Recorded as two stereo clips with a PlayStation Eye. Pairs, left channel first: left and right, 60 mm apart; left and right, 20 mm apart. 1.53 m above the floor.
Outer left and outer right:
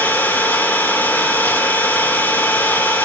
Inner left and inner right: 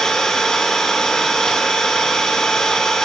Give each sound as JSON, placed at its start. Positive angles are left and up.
{"t": 0.0, "sound": "an engine running", "side_deg": 40, "distance_m": 2.5}